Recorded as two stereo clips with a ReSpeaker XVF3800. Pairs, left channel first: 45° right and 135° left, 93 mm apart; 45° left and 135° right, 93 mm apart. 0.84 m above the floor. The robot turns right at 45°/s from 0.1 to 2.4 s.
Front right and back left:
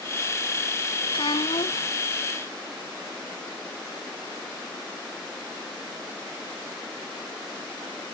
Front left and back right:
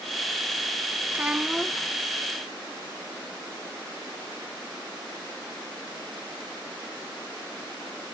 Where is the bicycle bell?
No bicycle bell in this recording.